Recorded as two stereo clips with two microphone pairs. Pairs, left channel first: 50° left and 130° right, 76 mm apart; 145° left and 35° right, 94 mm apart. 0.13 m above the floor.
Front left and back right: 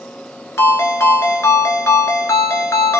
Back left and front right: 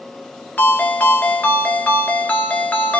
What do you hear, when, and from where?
0.6 s a ringtone: 80° left, 0.8 m